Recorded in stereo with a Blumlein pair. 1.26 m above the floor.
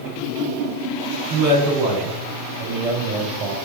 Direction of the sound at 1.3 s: 35° right.